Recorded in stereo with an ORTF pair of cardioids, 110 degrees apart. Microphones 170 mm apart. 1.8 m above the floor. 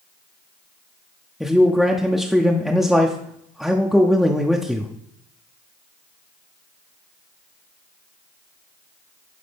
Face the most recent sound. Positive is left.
turn(degrees=0)